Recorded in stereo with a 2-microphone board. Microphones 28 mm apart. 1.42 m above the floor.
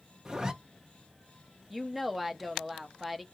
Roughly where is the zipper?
Right.